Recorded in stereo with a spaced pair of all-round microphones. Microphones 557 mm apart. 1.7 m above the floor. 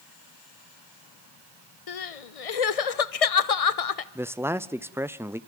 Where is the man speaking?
5° right (ahead or behind), 0.5 m.